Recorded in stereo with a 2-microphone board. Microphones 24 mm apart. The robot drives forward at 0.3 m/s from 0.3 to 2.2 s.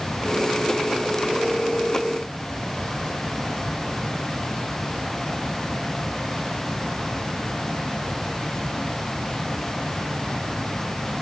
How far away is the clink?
I don't hear a clink.